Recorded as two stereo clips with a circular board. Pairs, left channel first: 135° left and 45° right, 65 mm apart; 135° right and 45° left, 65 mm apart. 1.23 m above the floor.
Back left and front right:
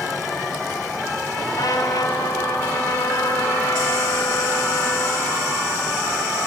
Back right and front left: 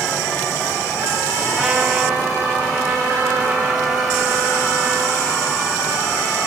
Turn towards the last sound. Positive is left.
turn(degrees=125)